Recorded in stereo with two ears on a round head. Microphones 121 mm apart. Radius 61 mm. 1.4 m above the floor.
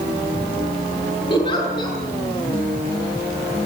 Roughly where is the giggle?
Left.